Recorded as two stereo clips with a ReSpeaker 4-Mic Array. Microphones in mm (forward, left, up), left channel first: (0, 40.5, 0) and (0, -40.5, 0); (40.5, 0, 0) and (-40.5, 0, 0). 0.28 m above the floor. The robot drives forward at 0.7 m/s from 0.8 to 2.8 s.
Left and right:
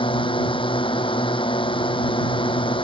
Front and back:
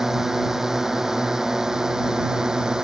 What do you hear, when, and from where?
0.0 s a drone: 95° left; by 2.9 s 100° left